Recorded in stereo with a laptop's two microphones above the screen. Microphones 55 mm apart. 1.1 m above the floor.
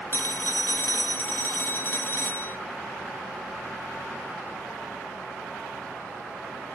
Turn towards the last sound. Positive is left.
turn(degrees=40)  # may be behind; listen again after turning